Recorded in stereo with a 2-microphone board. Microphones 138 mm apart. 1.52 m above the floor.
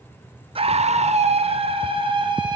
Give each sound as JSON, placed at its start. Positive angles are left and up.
{"t": 0.6, "sound": "a scream", "side_deg": -45, "distance_m": 0.5}